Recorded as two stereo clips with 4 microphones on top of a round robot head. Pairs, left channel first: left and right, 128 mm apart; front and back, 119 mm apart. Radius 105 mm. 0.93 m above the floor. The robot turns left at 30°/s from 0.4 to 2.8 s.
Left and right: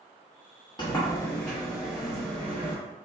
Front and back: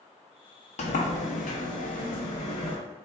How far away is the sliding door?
About 0.8 m.